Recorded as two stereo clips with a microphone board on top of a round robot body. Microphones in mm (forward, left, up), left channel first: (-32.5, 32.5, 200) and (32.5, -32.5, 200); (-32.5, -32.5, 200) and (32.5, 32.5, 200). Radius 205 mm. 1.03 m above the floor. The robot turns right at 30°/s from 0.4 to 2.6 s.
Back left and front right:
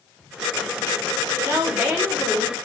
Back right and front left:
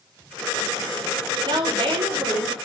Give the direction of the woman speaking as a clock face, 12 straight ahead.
12 o'clock.